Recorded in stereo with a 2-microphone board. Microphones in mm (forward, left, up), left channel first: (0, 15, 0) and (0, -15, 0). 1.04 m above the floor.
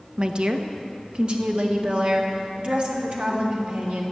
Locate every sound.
0.2 s a woman speaking: 35° right (ahead or behind), 0.9 m; by 4.0 s 40° right (ahead or behind), 3.5 m